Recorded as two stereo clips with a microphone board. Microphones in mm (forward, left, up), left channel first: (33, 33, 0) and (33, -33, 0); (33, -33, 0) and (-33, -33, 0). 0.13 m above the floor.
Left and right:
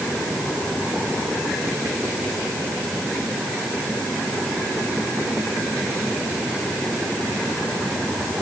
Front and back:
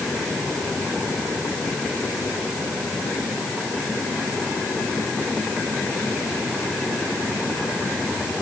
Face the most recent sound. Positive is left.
No sound to turn to.